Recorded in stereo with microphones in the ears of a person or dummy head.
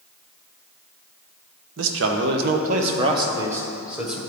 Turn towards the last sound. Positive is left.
turn(degrees=0)  # may be behind; listen again after turning